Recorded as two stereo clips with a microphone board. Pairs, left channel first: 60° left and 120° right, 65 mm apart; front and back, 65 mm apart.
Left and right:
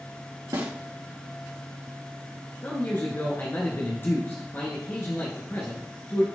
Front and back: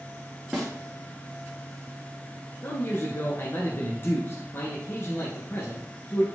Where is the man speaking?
25° left, 1.5 m.